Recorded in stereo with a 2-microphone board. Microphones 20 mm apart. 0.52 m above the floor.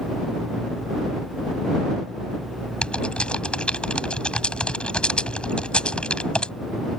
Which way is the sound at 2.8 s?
75° left (ahead or behind).